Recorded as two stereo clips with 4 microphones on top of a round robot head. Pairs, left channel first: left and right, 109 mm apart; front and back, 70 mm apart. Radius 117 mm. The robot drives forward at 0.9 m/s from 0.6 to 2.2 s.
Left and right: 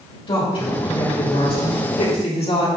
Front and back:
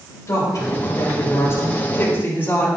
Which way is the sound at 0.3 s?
50° left.